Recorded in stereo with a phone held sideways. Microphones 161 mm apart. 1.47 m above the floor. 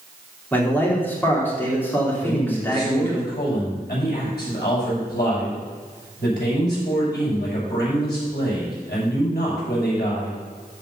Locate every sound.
0.5 s a man speaking: 15° left (ahead or behind), 3.5 m
2.2 s a man speaking: 85° left, 6 m